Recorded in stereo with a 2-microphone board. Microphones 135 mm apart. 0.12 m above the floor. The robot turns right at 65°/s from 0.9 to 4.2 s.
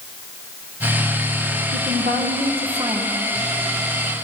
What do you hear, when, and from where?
1.7 s a woman speaking: 105° right, 4.5 m; by 3.2 s 10° right, 4.5 m